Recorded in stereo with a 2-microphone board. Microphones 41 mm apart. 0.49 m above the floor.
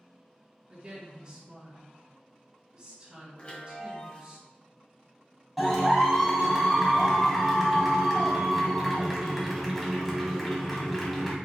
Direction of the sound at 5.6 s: Centre (ahead or behind).